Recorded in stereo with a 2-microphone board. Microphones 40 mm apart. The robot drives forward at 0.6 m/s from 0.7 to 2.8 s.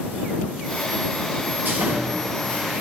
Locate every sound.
1.6 s sawing: 65° right (ahead or behind), 5 m; by 2.8 s 55° right (ahead or behind), 5.5 m